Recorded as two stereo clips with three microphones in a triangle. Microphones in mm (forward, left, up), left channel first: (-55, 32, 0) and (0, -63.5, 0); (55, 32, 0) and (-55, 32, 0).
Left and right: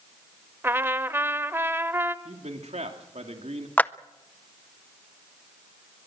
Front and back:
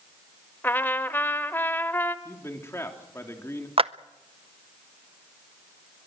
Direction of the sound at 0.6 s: 35° right.